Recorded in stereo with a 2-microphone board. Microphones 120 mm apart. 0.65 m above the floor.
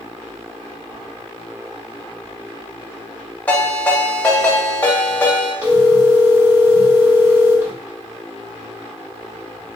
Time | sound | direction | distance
3.5 | a ringtone | 15° left (ahead or behind) | 1.5 m
5.6 | a phone ringing | 20° right (ahead or behind) | 1.3 m